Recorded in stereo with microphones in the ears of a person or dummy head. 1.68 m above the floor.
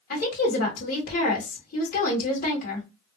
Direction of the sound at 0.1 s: 45° left (ahead or behind).